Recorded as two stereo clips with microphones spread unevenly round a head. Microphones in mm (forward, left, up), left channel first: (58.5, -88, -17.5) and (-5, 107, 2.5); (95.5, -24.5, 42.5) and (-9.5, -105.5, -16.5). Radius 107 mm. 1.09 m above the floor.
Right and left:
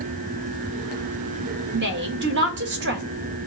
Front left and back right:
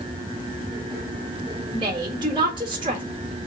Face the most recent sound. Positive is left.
turn(degrees=150)